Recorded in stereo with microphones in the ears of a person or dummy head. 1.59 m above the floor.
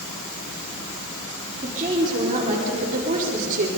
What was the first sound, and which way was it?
A woman speaking, 25° right (ahead or behind).